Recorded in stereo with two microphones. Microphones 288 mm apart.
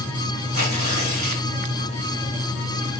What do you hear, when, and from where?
0.5 s tearing paper: 70° right (ahead or behind), 3.5 m